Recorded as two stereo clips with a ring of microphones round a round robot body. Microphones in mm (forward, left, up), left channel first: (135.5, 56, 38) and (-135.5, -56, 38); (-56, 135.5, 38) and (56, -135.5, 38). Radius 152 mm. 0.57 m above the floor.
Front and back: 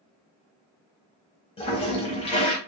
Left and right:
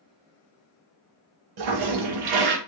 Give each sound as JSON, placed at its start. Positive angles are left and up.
{"t": 1.6, "sound": "a toilet flushing", "azimuth_deg": -50, "distance_m": 0.7}